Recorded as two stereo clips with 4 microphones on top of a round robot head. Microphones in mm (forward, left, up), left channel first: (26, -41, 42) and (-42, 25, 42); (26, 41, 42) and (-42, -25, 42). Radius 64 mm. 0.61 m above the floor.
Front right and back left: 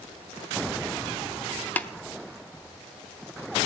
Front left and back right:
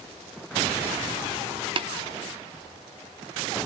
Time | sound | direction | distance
1.8 | tapping | 115° right | 0.9 m